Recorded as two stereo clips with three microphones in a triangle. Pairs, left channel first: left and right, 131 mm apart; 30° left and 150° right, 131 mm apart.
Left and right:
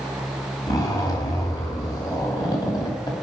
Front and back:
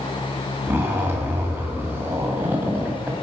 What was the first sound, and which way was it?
A zipper, 140° left.